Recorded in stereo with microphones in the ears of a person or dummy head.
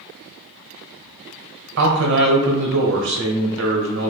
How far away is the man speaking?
About 0.8 m.